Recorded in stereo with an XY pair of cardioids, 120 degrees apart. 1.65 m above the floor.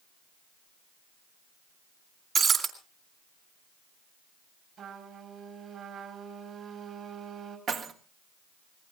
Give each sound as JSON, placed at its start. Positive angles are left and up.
{"t": 2.4, "sound": "breaking glass", "azimuth_deg": -40, "distance_m": 3.5}
{"t": 4.8, "sound": "a trumpet", "azimuth_deg": -50, "distance_m": 5.0}
{"t": 7.7, "sound": "keys jangling", "azimuth_deg": -55, "distance_m": 1.8}